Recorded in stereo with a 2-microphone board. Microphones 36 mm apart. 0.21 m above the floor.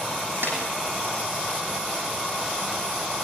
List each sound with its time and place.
0.4 s a snare drum: 80° right, 6 m